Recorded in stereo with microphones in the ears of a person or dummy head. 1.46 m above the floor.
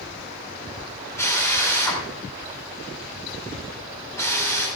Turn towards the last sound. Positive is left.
turn(degrees=15)  # may be behind; listen again after turning